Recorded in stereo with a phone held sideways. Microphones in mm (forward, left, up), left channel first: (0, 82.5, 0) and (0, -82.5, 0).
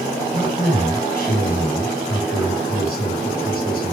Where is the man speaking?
70° left (ahead or behind), 5 m.